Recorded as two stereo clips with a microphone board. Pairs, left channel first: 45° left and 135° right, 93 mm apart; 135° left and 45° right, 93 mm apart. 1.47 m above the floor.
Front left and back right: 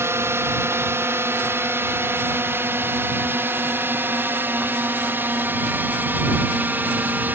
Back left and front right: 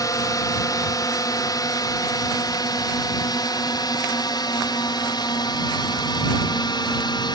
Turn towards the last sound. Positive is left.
turn(degrees=160)